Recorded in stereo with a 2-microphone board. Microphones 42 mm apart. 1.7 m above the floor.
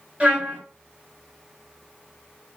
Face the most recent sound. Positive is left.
turn(degrees=-30)  # may be behind; listen again after turning